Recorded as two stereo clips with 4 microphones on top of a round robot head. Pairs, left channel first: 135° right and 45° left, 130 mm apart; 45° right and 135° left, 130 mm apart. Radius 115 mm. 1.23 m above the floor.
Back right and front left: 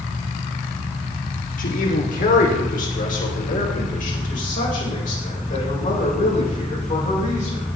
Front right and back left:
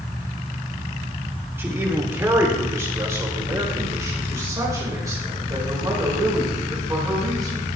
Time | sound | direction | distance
1.6 | a man speaking | 150° right | 3 m